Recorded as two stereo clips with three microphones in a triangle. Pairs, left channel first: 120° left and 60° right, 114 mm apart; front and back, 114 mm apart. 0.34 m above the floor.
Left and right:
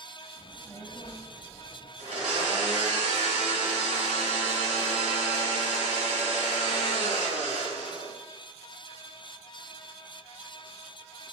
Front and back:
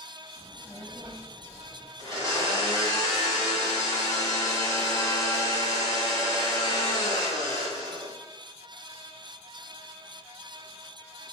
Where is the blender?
60° right, 1.4 m.